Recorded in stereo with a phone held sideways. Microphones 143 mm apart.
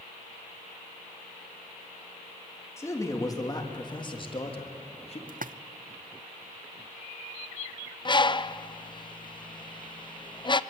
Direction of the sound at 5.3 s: 70° right (ahead or behind).